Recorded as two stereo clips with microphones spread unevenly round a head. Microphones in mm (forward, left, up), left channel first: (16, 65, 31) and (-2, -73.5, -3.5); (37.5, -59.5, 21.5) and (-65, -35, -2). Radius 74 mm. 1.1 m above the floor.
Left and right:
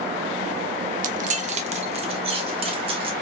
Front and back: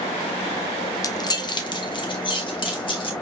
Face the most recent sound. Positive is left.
turn(degrees=-45)